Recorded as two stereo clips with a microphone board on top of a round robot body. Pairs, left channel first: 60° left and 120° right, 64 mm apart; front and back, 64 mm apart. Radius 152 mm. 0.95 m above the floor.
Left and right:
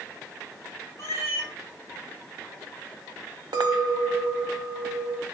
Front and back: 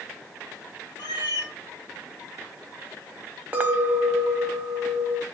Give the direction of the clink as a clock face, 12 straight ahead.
4 o'clock.